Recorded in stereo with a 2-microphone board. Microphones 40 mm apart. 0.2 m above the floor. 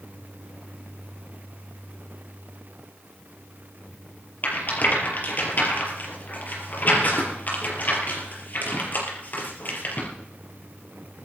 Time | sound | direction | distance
4.4 | a rattle | 45° left (ahead or behind) | 4.5 m